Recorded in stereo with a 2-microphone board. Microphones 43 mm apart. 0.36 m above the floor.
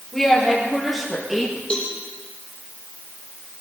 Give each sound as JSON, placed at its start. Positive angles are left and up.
{"t": 0.1, "sound": "a woman speaking", "side_deg": 5, "distance_m": 9.0}
{"t": 1.7, "sound": "a cowbell", "side_deg": 20, "distance_m": 5.5}